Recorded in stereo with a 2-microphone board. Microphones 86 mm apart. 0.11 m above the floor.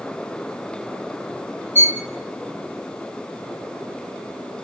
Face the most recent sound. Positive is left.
turn(degrees=-30)  # may be behind; listen again after turning